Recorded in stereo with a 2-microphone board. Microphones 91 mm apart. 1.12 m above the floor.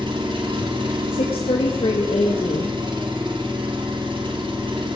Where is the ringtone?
No ringtone in this recording.